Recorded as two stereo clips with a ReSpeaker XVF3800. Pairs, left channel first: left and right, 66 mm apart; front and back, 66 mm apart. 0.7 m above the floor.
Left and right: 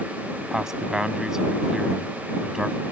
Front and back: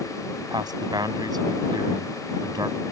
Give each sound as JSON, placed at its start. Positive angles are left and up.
{"t": 0.5, "sound": "a man speaking", "azimuth_deg": -170}